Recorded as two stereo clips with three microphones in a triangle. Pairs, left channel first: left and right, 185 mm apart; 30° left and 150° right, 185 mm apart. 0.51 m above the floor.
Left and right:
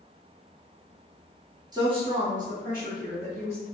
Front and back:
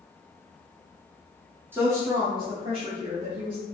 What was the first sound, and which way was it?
A woman speaking, 95° right.